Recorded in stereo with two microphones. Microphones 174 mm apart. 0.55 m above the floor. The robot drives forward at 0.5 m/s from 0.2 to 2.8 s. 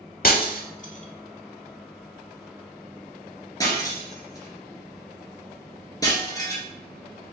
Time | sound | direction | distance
0.2 | breaking glass | 55° left (ahead or behind) | 0.6 m